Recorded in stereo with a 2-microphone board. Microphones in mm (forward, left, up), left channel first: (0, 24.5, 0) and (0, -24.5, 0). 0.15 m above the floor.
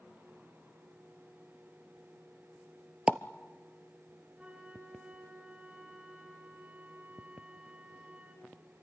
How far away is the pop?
About 0.7 m.